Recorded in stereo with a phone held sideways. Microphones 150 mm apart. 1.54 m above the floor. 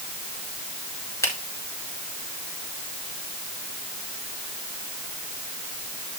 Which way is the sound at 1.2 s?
20° left (ahead or behind).